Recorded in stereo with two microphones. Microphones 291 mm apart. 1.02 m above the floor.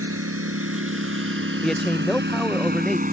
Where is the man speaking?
Centre (ahead or behind).